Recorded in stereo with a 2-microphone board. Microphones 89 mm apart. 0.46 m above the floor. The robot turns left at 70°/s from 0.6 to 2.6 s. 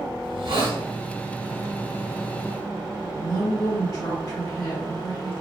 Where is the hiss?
75° right (ahead or behind), 1.4 m; by 0.8 s 85° right, 1.4 m.